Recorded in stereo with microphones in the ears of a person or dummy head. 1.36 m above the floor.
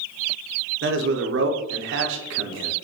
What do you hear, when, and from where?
0.8 s a man speaking: 55° right (ahead or behind), 0.7 m